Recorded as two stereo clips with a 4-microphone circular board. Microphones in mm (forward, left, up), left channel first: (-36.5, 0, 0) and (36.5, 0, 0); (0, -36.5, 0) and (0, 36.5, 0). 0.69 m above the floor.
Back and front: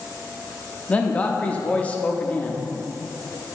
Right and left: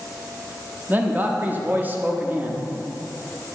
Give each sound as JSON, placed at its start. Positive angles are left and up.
{"t": 0.9, "sound": "a man speaking", "azimuth_deg": 125, "distance_m": 0.5}